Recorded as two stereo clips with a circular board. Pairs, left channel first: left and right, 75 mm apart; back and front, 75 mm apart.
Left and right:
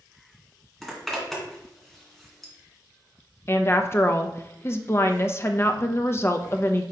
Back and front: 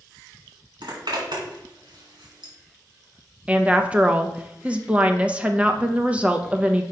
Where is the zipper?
5° left, 2.5 m.